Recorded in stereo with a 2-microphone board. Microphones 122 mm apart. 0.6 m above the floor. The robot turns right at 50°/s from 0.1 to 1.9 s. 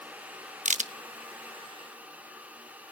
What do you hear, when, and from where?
0.7 s a crack: 75° right (ahead or behind), 0.6 m; by 0.9 s 70° right (ahead or behind), 0.6 m